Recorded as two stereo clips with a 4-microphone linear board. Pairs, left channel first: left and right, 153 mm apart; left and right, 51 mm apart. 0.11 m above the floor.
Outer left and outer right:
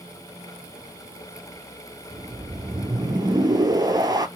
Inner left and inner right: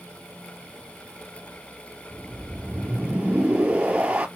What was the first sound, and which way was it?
A whoosh, 25° right (ahead or behind).